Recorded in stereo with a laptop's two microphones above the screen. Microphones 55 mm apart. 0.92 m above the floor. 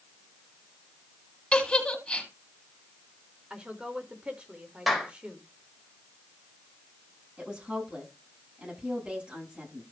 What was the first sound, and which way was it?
A giggle, 20° left (ahead or behind).